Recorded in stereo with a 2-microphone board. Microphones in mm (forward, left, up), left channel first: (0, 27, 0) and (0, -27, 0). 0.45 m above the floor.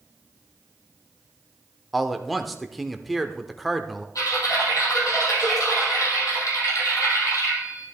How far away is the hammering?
I don't hear hammering.